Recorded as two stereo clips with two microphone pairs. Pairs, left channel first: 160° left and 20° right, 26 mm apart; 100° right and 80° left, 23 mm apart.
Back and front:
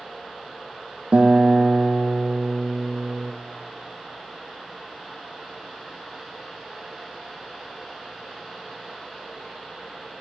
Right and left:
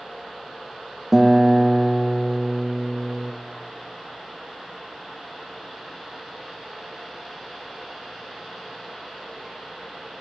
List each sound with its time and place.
1.1 s a guitar: straight ahead, 1.2 m